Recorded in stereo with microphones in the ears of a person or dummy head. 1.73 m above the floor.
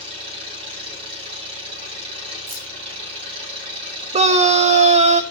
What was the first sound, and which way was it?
An engine running, 40° right (ahead or behind).